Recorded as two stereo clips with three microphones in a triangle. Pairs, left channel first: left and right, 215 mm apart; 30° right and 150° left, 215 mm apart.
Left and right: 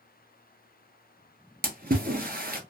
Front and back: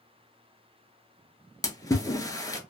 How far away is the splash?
About 0.6 m.